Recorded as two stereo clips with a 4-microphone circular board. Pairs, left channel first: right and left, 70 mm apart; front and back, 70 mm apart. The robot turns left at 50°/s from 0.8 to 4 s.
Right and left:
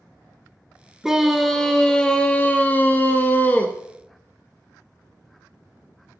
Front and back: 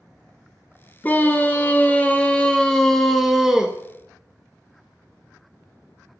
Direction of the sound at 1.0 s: 15° left.